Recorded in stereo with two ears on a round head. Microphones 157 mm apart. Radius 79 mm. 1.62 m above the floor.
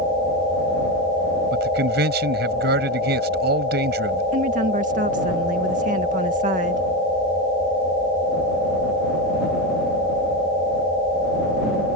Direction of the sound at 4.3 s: 50° right (ahead or behind).